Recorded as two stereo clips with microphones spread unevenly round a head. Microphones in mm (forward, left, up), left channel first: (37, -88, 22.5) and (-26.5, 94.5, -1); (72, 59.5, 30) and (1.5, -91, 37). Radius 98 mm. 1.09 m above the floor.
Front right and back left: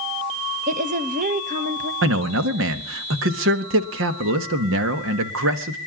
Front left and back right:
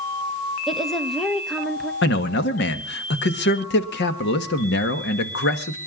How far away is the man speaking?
About 1.5 m.